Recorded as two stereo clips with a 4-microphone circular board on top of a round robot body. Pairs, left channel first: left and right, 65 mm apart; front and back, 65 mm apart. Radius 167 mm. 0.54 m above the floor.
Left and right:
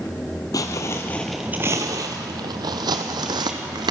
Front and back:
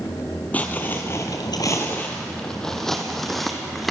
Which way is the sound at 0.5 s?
65° left.